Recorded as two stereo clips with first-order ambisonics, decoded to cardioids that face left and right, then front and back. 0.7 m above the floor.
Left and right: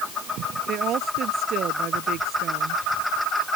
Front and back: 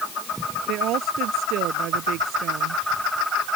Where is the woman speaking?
140° right.